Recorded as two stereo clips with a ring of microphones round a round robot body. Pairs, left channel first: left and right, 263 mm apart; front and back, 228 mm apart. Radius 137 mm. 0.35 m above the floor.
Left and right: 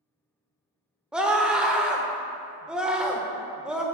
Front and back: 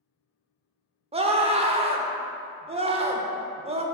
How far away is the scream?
About 0.9 m.